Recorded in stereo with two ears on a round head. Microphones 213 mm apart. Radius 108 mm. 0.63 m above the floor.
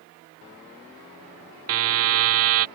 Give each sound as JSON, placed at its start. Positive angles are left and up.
{"t": 1.7, "sound": "a buzzer", "side_deg": -60}